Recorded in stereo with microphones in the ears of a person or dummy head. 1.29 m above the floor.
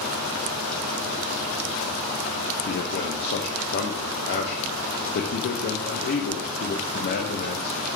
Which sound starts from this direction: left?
A man speaking, at 2.6 s.